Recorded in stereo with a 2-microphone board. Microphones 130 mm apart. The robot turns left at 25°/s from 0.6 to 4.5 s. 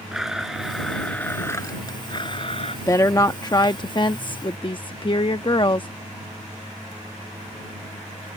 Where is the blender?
Straight behind; by 2.8 s 130° left.